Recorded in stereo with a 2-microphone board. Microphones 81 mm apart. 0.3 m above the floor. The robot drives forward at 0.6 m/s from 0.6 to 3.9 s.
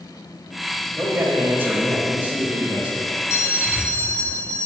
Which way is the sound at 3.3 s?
35° left (ahead or behind).